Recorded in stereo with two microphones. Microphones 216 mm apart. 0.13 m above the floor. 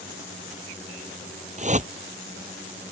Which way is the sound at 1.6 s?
35° right (ahead or behind).